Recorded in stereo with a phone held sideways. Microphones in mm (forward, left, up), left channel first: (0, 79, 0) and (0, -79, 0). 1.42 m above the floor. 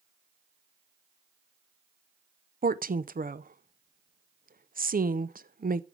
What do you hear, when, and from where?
2.6 s a woman speaking: 75° right (ahead or behind), 0.6 m